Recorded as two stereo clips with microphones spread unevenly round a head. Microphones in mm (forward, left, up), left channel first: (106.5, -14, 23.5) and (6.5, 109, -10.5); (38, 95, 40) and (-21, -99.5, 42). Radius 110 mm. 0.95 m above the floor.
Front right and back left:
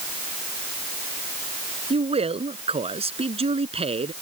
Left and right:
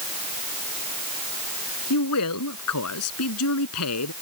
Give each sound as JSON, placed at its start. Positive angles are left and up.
{"t": 1.9, "sound": "a man speaking", "azimuth_deg": 75}